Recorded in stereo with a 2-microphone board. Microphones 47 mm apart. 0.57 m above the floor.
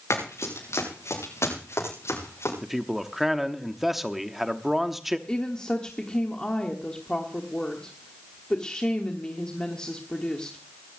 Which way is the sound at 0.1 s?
80° left.